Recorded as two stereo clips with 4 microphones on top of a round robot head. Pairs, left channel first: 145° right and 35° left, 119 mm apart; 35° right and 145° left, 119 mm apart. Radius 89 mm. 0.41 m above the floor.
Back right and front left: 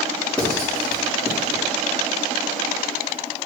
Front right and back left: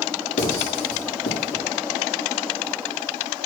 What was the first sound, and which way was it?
Writing, 60° right.